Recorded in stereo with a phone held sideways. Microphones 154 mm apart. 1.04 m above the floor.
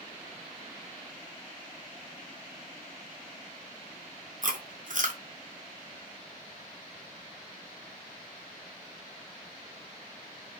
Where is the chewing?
60° right (ahead or behind), 1.2 m.